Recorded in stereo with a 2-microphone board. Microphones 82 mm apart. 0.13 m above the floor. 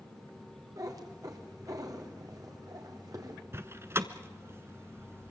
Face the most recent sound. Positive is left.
turn(degrees=-35)  # may be behind; listen again after turning